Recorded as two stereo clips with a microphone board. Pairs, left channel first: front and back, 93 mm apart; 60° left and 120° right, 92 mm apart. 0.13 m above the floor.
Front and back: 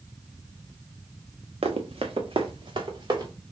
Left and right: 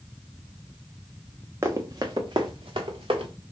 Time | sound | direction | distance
1.6 | running footsteps | straight behind | 0.8 m